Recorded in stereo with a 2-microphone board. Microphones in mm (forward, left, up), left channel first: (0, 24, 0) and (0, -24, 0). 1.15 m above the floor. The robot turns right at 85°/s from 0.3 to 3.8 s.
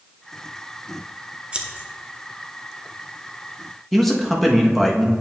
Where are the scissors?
20° right (ahead or behind), 0.7 m; by 1.9 s 35° right (ahead or behind), 0.7 m.